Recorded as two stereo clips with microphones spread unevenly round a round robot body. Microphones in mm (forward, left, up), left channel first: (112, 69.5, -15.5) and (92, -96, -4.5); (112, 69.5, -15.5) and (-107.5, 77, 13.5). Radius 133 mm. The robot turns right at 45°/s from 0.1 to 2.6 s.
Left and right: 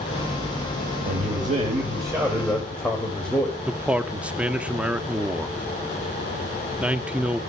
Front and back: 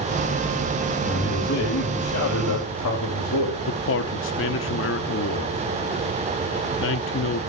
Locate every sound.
1.1 s a man speaking: 70° right, 3.5 m; by 3.6 s straight ahead, 3.5 m
3.7 s a man speaking: 10° right, 1.0 m